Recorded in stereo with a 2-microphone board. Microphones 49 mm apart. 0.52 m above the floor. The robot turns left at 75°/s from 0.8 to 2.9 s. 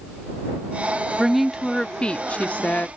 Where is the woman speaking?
160° right; by 2.9 s 75° left.